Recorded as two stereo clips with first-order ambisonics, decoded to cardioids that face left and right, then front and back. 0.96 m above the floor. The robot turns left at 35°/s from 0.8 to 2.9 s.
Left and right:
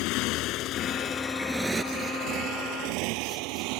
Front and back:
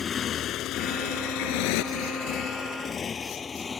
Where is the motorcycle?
70° left; by 3.8 s 75° right.